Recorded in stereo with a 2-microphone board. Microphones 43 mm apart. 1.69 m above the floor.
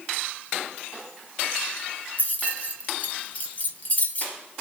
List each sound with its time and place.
2.2 s keys jangling: 35° left (ahead or behind), 0.9 m